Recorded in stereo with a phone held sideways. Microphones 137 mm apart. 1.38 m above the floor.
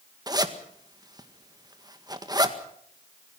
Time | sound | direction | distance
0.3 | a zipper | 30° right (ahead or behind) | 1.8 m